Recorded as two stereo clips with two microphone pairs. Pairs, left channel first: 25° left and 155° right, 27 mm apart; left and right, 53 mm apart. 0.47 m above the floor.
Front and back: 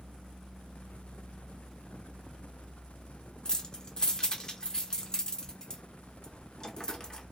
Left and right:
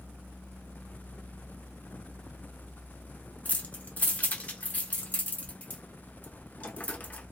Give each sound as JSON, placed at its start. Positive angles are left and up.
{"t": 3.5, "sound": "keys jangling", "azimuth_deg": 60, "distance_m": 0.5}